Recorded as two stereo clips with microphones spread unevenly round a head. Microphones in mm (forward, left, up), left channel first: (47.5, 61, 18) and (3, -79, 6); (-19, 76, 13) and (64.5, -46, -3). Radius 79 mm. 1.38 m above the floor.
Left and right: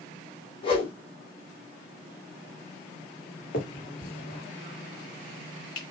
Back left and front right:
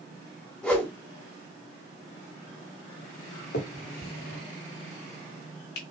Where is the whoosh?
50° left, 1.4 m.